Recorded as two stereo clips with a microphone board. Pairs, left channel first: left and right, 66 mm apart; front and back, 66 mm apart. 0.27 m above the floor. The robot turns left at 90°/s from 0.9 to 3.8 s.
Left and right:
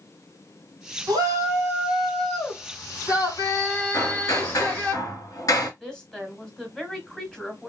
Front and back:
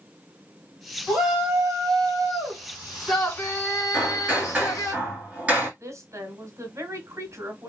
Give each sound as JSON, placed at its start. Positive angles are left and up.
{"t": 1.1, "sound": "a shout", "azimuth_deg": -85, "distance_m": 2.5}
{"t": 3.9, "sound": "hammering", "azimuth_deg": 110, "distance_m": 2.0}
{"t": 5.8, "sound": "a woman speaking", "azimuth_deg": 170, "distance_m": 1.7}